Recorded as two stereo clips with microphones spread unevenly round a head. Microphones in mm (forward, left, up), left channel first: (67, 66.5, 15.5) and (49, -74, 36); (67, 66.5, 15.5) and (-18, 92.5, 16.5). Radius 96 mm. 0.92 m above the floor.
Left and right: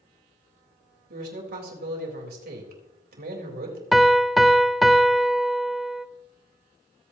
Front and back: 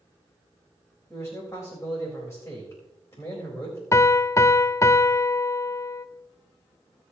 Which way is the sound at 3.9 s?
5° left.